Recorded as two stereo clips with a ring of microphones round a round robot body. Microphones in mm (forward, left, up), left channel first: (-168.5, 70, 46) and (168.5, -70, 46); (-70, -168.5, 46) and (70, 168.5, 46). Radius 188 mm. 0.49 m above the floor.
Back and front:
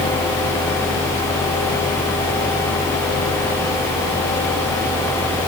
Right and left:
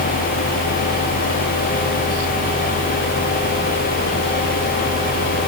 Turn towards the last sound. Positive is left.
No sound to turn to.